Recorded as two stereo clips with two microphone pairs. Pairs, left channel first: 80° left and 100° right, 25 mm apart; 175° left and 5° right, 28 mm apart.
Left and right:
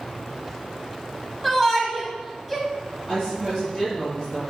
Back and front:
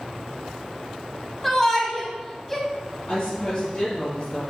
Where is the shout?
140° left, 1.0 m.